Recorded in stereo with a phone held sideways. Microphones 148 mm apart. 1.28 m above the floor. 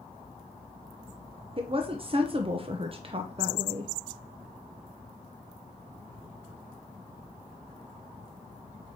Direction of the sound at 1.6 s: 40° right (ahead or behind).